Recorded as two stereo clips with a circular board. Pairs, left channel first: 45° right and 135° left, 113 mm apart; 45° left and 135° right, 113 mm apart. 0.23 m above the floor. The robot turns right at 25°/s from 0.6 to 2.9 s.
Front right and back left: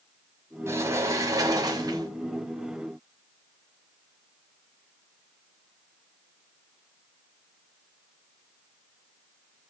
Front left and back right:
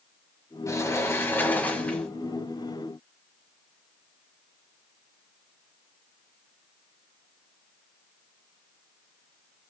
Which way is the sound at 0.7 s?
85° left.